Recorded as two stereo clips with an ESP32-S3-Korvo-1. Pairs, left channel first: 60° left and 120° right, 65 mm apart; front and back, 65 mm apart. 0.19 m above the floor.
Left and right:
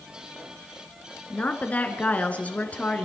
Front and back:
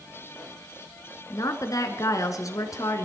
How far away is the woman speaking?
About 1.9 m.